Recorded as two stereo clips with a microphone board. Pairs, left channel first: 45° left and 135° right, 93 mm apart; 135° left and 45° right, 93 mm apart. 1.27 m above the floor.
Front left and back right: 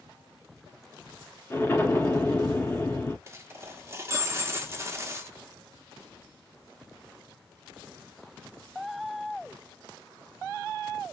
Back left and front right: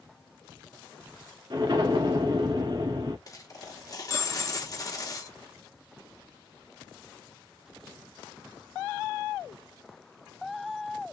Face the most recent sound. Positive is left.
turn(degrees=170)